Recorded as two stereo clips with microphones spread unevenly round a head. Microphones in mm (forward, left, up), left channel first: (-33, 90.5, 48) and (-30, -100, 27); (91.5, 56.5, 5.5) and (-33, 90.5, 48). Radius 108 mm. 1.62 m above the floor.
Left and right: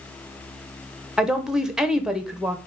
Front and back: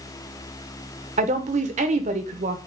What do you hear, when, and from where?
1.2 s a woman speaking: straight behind, 0.9 m